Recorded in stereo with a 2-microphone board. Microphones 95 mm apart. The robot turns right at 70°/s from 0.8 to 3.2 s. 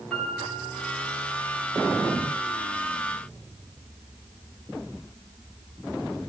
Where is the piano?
170° left, 4 m; by 1.3 s 155° right, 4 m.